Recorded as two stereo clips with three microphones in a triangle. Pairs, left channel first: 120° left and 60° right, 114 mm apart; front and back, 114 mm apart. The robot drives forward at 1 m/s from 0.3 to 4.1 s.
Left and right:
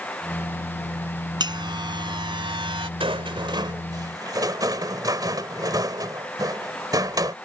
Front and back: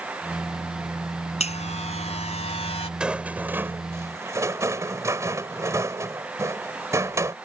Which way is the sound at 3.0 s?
95° right.